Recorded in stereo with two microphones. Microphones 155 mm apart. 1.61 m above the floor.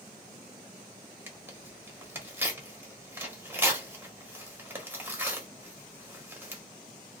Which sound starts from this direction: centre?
Tearing paper, at 1.3 s.